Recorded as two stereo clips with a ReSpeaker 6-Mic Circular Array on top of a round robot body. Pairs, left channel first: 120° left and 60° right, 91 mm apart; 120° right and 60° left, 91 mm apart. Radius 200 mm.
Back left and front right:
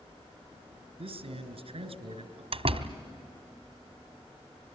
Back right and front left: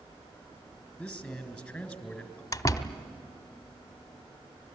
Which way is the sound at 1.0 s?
35° right.